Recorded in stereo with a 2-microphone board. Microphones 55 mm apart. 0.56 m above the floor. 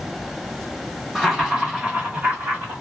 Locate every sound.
1.1 s laughter: 5° right (ahead or behind), 1.0 m; by 2.8 s 45° right (ahead or behind), 1.4 m